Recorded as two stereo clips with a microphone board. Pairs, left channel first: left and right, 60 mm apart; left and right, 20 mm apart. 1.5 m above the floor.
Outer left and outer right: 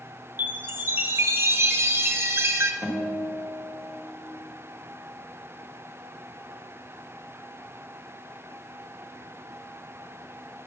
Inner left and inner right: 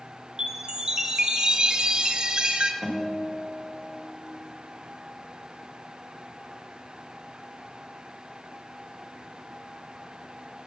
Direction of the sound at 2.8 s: 25° left (ahead or behind).